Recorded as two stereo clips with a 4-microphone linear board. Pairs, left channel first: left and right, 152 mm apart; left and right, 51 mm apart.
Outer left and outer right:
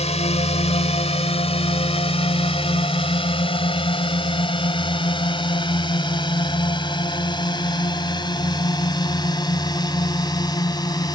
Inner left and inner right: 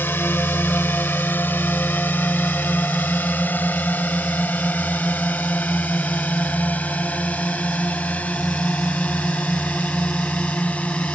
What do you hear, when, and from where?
0.0 s a drone: 45° left (ahead or behind); by 11.2 s 25° left (ahead or behind)